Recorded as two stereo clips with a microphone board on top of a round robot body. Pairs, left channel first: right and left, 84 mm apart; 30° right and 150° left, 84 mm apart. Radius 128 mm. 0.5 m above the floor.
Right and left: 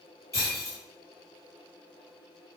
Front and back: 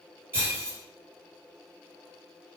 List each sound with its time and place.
0.3 s breaking glass: 145° right, 5.5 m